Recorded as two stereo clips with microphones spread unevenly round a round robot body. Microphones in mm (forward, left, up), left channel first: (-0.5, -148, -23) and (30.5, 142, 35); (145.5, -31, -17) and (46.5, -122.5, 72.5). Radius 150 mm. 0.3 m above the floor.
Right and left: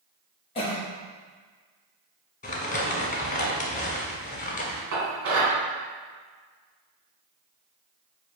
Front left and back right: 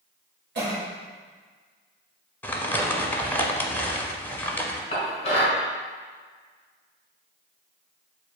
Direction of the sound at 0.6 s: 145° right.